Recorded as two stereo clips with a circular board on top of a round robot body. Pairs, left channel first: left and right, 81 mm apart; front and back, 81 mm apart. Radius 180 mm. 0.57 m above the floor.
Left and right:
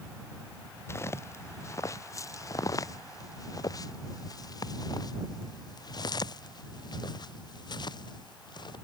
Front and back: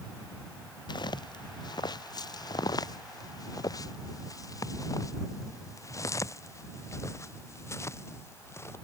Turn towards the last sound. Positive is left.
turn(degrees=60)